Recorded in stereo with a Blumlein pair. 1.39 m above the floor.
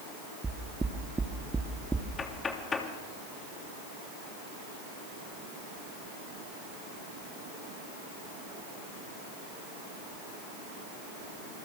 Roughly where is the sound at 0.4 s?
Ahead.